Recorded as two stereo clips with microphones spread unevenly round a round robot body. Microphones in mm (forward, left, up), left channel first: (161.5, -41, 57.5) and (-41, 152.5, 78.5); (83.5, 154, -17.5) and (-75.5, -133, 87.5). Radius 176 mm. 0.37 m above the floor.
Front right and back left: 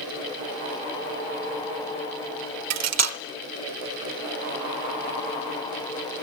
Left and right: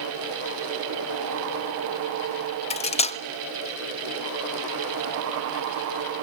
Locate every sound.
2.7 s cutlery clinking: 115° left, 0.8 m